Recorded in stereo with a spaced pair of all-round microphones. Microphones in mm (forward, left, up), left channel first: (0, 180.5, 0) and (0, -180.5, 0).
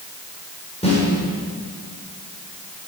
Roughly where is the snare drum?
Centre.